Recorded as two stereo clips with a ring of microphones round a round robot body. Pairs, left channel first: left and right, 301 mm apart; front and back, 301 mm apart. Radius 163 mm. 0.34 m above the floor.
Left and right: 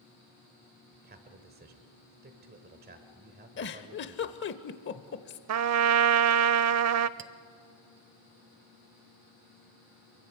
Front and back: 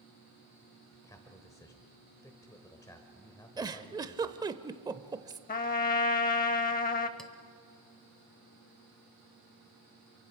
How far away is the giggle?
About 0.8 m.